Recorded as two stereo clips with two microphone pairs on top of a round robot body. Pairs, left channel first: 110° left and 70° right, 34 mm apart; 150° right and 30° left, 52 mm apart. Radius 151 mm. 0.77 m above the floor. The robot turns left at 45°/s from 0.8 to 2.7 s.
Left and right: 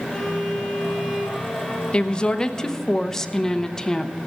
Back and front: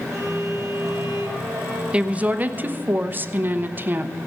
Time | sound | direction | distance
0.1 | a violin | 15° left | 4 m
1.9 | a woman speaking | 90° left | 1.1 m